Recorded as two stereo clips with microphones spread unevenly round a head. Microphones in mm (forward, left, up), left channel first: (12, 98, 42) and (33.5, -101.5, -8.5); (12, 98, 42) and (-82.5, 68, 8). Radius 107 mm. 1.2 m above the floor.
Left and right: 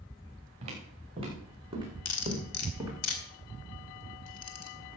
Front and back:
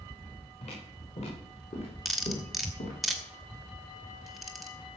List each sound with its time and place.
0.6 s footsteps: 20° right, 5.5 m; by 2.9 s straight ahead, 3.5 m
2.0 s cutlery clinking: 105° left, 2.5 m